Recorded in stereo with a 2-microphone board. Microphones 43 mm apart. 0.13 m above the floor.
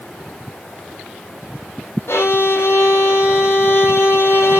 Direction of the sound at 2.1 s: 70° left (ahead or behind).